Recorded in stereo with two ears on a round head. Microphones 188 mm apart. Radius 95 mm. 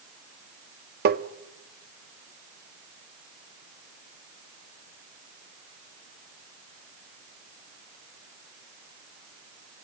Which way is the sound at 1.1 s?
50° right (ahead or behind).